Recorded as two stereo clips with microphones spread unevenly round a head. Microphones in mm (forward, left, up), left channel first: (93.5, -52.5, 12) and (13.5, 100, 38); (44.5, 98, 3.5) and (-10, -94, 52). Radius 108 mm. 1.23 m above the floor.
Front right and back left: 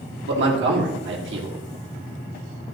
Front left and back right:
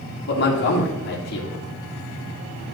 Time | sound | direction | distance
0.3 | a man speaking | 110° left | 2.5 m